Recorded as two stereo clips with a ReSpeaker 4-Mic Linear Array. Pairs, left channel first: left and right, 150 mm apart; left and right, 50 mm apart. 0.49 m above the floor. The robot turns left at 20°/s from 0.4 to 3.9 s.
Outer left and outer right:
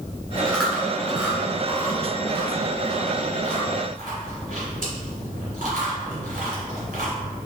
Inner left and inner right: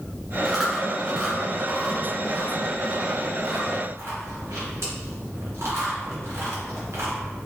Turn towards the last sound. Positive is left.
turn(degrees=-65)  # may be behind; listen again after turning